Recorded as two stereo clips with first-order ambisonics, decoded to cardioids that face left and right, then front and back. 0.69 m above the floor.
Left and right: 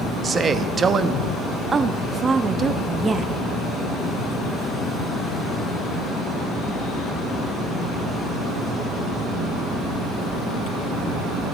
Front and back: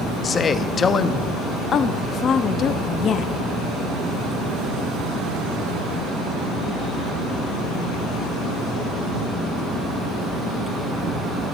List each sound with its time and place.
0.2 s a man speaking: 45° right, 0.7 m
1.7 s a woman speaking: 30° right, 0.6 m